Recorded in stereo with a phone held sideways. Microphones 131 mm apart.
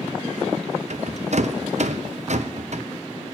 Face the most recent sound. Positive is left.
turn(degrees=-60)  # may be behind; listen again after turning